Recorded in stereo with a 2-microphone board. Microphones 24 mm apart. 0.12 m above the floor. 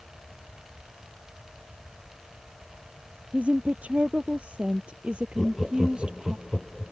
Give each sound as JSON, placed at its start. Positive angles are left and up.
{"t": 3.3, "sound": "a woman speaking", "side_deg": -65}
{"t": 5.4, "sound": "laughter", "side_deg": 10}